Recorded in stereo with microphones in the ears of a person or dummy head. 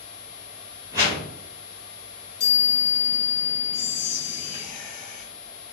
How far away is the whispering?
About 0.8 m.